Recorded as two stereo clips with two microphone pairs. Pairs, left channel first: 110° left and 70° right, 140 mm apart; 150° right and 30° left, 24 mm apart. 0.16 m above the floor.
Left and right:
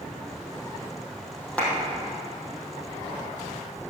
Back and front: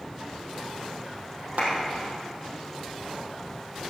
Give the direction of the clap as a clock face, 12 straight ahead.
11 o'clock.